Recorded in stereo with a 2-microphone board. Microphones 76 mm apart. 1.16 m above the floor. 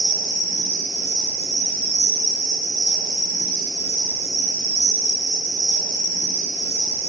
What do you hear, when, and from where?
0.0 s an insect: 40° right (ahead or behind), 1.7 m